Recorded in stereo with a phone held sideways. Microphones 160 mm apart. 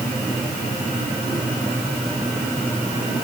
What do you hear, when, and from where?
Only background noise.